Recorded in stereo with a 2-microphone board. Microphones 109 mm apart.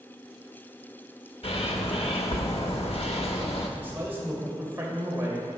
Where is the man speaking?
20° right (ahead or behind), 2.5 m.